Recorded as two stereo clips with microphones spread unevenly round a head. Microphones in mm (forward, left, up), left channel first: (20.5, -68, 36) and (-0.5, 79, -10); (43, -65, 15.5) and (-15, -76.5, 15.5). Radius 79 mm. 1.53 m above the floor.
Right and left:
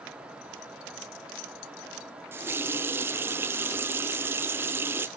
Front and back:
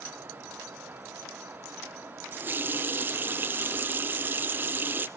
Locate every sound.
2.3 s a running tap: 165° right, 0.6 m